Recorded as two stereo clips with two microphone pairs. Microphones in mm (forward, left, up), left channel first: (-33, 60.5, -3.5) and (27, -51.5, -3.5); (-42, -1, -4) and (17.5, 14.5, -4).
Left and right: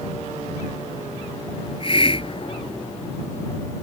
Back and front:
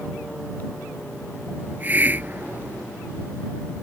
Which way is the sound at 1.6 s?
75° left.